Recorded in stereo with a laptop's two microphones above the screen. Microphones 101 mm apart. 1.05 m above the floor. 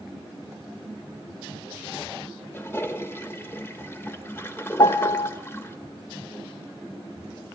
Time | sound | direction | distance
2.5 | a toilet flushing | 25° left (ahead or behind) | 1.1 m
4.8 | a piano | 40° left (ahead or behind) | 0.6 m